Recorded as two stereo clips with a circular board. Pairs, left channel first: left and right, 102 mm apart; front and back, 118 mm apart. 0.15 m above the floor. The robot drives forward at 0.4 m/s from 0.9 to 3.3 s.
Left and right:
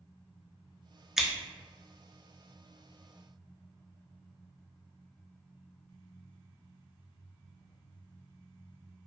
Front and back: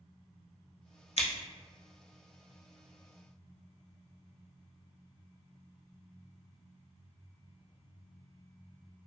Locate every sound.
1.2 s scissors: 5° right, 0.6 m